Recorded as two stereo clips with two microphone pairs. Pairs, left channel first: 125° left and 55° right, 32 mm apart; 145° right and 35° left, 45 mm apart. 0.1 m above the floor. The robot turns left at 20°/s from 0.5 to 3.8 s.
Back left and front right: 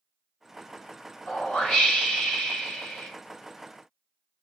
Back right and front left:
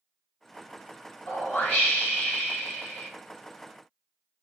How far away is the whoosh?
About 1.8 m.